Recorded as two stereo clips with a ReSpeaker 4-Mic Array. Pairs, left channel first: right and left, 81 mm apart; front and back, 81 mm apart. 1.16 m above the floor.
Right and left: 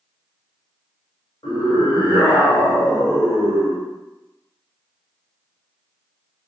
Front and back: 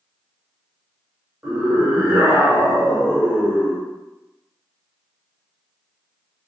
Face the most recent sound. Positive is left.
turn(degrees=-115)